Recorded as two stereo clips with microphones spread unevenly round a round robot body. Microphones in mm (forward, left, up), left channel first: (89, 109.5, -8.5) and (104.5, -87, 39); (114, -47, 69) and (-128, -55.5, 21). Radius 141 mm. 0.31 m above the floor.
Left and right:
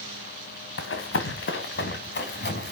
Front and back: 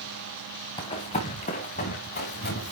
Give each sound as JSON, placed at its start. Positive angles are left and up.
{"t": 0.8, "sound": "running footsteps", "azimuth_deg": 75, "distance_m": 2.0}